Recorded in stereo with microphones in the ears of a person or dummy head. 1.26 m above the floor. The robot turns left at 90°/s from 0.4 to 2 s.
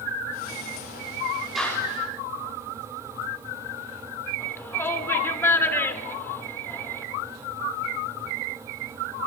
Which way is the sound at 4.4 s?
15° left (ahead or behind).